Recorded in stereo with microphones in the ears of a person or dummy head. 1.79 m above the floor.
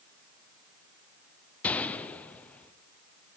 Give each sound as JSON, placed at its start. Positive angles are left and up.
{"t": 1.6, "sound": "a gunshot", "side_deg": 10, "distance_m": 0.7}